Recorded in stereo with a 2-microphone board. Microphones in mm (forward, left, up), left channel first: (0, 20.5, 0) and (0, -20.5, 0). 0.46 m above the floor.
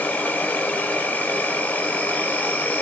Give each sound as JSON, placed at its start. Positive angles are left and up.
{"t": 0.0, "sound": "an insect", "side_deg": 50, "distance_m": 1.3}